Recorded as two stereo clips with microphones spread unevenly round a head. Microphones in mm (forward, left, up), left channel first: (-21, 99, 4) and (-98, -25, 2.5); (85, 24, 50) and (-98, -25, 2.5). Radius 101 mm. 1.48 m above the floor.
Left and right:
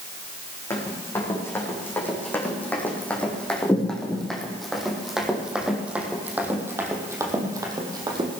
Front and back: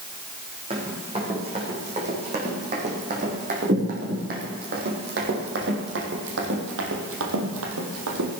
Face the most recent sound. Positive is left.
turn(degrees=180)